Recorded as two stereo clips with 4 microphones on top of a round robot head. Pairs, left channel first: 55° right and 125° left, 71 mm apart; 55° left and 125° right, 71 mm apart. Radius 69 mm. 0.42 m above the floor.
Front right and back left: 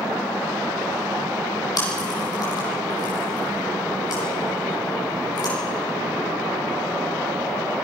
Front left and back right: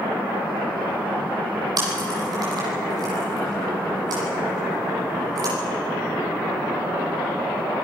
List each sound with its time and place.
1.8 s chewing: 90° right, 9 m